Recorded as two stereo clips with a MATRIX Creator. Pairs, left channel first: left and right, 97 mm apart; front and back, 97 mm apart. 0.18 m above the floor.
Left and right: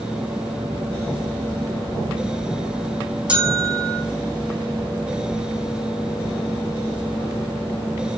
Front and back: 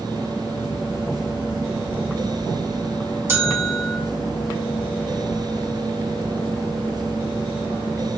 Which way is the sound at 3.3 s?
150° right.